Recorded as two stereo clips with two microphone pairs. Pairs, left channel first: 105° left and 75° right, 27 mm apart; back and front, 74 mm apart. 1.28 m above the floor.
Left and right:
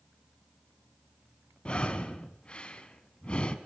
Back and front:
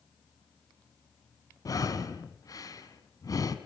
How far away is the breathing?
About 2.5 m.